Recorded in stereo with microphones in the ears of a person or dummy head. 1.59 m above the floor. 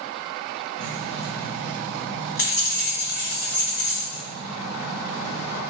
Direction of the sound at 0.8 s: 65° left (ahead or behind).